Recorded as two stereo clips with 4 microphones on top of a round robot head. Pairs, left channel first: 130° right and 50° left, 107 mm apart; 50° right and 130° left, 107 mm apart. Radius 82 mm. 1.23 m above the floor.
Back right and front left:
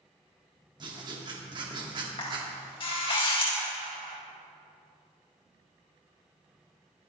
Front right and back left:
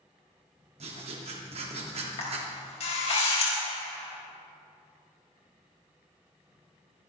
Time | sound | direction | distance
0.8 | writing | 100° left | 2.5 m
2.2 | a camera shutter | 80° right | 4.5 m